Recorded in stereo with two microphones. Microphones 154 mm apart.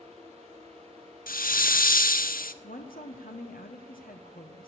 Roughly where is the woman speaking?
Left.